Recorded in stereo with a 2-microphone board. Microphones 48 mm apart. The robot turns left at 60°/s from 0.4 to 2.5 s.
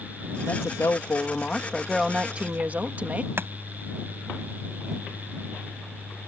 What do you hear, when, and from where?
0.5 s a woman speaking: 90° left; by 3.3 s 35° right
3.4 s chopping: 50° right (ahead or behind)